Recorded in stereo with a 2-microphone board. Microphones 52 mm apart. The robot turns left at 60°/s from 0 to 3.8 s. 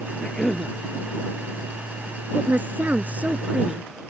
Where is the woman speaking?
70° right; by 3.8 s 160° right.